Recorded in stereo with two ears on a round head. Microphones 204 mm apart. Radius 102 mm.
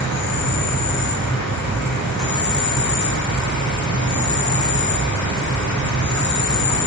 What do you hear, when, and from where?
0.0 s an insect: 80° left, 1.8 m